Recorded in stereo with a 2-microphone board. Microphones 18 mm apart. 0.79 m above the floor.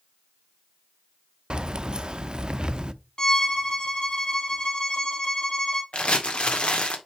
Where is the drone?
No drone in this recording.